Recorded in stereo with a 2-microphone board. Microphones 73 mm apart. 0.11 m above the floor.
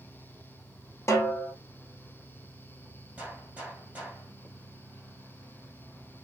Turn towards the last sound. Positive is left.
turn(degrees=-20)  # may be behind; listen again after turning